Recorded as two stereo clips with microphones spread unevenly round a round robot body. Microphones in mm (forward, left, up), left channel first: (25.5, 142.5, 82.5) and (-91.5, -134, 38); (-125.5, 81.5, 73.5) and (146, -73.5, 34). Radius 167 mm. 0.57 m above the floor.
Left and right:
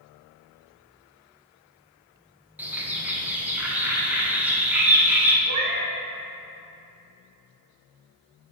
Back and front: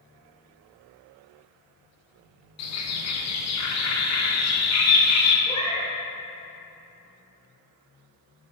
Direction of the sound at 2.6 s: 170° left.